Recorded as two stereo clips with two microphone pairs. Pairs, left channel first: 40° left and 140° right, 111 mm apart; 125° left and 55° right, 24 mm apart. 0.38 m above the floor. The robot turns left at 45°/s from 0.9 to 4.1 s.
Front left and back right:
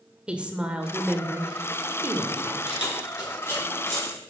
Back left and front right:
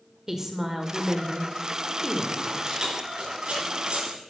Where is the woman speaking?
80° right, 1.1 m; by 2.7 s 165° right, 1.1 m.